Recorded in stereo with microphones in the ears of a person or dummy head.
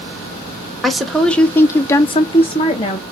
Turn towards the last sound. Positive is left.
turn(degrees=25)  # may be behind; listen again after turning